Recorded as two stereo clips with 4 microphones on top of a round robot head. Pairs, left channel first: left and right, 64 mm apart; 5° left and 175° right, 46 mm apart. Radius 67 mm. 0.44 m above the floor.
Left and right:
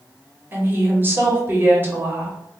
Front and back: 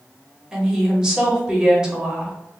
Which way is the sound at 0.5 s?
105° right.